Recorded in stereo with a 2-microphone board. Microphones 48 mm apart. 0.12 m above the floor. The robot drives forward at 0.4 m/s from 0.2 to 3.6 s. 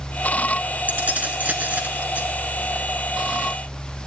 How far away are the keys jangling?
About 1.0 m.